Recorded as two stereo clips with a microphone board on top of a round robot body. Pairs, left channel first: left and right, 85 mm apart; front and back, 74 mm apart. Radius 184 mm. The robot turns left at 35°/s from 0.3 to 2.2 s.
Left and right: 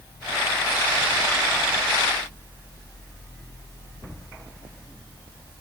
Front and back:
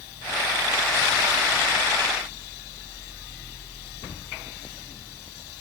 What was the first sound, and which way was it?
Only background noise.